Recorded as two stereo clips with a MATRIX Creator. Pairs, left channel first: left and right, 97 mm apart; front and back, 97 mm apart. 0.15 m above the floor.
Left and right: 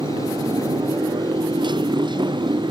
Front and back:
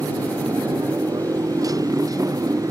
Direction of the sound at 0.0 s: 130° right.